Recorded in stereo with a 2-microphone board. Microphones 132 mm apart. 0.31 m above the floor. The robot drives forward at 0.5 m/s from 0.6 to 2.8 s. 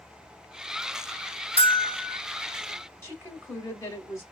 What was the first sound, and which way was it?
Whispering, 50° right (ahead or behind).